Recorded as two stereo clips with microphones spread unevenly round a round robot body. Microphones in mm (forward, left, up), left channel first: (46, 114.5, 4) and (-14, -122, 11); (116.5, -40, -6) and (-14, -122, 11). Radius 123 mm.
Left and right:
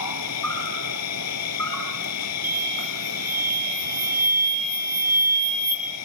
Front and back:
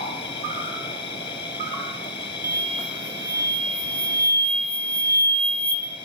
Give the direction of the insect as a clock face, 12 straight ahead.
9 o'clock.